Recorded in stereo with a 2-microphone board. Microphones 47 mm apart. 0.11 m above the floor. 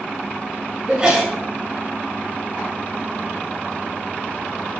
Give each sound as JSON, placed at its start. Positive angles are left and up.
{"t": 0.9, "sound": "a sneeze", "side_deg": -25, "distance_m": 1.1}